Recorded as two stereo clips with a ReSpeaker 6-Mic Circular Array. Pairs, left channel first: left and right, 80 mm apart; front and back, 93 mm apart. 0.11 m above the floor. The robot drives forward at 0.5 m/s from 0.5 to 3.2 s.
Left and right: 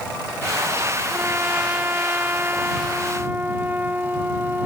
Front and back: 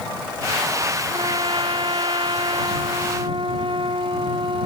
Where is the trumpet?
155° right.